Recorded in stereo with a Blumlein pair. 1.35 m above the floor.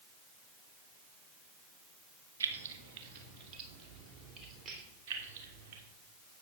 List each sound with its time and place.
2.4 s keys jangling: 70° right, 1.2 m; by 4.8 s 25° right, 3.5 m
5.1 s keys jangling: 50° right, 2.5 m